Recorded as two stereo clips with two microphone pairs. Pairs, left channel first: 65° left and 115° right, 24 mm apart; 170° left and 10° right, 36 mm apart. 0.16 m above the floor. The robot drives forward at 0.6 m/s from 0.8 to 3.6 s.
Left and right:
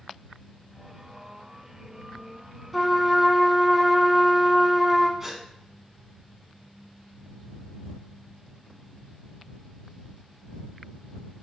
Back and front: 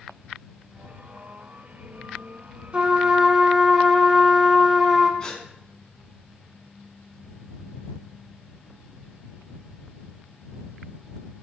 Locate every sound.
2.7 s a trumpet: 25° right, 0.8 m; by 5.1 s 120° right, 0.7 m
5.2 s a gasp: 165° right, 0.5 m